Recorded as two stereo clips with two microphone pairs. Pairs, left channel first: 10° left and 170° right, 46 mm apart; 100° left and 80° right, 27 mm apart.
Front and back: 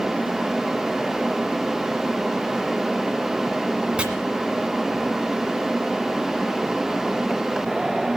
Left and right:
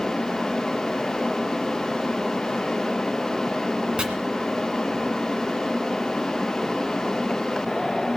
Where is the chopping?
115° right, 1.5 m.